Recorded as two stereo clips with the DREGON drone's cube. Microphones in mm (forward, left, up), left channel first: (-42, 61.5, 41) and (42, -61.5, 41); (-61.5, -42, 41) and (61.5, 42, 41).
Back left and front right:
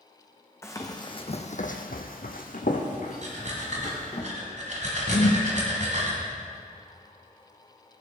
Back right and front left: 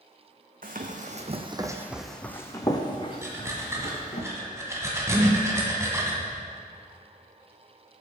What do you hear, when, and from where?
0.6 s running footsteps: 55° left, 1.4 m; by 4.2 s 170° left, 2.5 m
3.2 s breathing: 35° right, 1.8 m
5.1 s a whoosh: 105° left, 1.2 m